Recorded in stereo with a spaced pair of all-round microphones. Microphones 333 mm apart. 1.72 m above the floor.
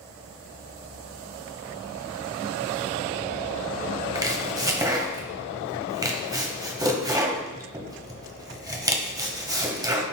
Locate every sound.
4.2 s chopping: 10° right (ahead or behind), 1.0 m